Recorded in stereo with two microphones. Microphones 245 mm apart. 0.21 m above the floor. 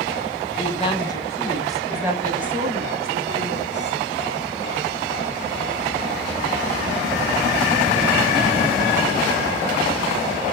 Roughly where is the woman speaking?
Left.